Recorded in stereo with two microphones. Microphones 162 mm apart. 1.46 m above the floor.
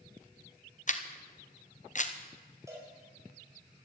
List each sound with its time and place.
0.9 s a camera shutter: 50° left (ahead or behind), 0.9 m
2.7 s a cowbell: 20° right (ahead or behind), 5 m